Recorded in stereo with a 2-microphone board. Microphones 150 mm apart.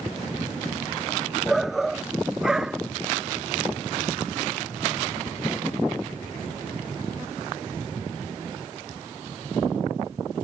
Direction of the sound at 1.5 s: Centre (ahead or behind).